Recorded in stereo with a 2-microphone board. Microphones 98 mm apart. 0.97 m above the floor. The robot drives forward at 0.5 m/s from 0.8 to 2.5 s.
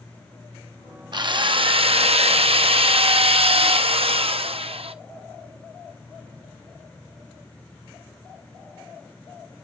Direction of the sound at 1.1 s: 50° right (ahead or behind).